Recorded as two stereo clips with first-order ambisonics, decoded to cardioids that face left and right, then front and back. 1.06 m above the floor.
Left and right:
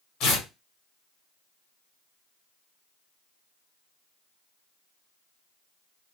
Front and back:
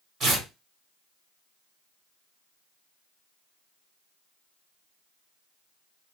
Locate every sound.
0.2 s tearing paper: 120° left, 1.6 m